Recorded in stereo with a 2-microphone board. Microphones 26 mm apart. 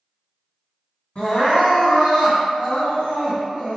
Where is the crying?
40° left (ahead or behind), 1.8 m.